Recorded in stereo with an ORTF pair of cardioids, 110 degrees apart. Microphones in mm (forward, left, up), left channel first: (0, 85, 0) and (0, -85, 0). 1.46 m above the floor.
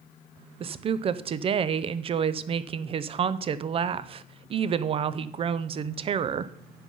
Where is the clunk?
I don't hear a clunk.